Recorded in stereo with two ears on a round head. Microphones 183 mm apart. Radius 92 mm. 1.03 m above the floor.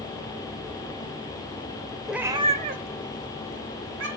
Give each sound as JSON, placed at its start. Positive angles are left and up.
{"t": 2.1, "sound": "a cat meowing", "side_deg": 0, "distance_m": 0.7}